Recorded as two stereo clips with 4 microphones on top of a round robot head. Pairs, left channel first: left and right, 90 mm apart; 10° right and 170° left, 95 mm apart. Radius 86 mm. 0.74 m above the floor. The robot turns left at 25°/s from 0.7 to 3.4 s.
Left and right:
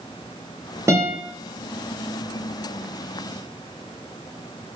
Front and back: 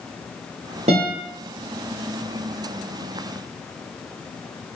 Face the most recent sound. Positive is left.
turn(degrees=145)